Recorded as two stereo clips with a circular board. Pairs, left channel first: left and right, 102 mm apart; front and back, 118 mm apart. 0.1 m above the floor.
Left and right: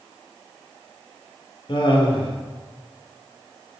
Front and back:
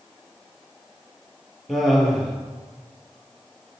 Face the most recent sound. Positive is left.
turn(degrees=90)